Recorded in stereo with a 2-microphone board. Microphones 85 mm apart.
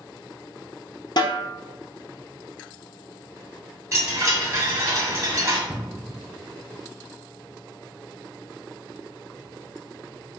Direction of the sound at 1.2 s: 60° left (ahead or behind).